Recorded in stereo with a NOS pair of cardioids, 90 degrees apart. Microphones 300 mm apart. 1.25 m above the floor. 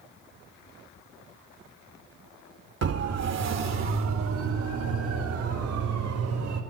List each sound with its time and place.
2.8 s a siren: 55° right, 2.5 m; by 6.6 s 75° right, 6 m